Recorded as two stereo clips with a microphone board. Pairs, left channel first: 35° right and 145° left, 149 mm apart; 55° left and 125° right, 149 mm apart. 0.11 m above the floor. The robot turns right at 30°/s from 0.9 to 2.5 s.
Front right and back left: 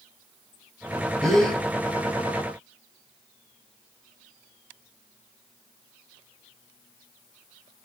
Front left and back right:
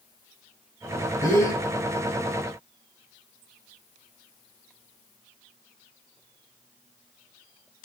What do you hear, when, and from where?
1.2 s a gasp: 45° left, 1.5 m; by 1.6 s 55° left, 1.5 m